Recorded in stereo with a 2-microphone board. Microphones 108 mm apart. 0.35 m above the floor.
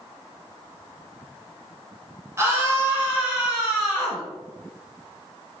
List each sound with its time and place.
2.4 s a scream: 25° right (ahead or behind), 1.3 m; by 4.2 s 5° right (ahead or behind), 2 m